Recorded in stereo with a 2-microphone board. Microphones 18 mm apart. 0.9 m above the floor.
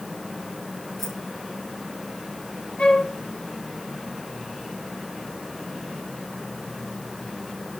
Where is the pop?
No pop in this recording.